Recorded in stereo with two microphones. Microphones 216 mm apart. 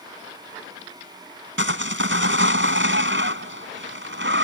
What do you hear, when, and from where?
1.6 s sawing: 60° right (ahead or behind)